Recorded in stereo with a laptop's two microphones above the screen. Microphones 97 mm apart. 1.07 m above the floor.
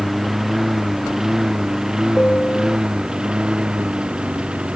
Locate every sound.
0.0 s a lawn mower: 5° right (ahead or behind); by 4.8 s 10° right (ahead or behind)
2.1 s a piano: 15° left (ahead or behind)